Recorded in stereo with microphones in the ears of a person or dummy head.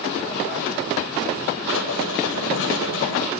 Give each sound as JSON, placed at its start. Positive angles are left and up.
{"t": 1.7, "sound": "writing", "side_deg": 80, "distance_m": 9.0}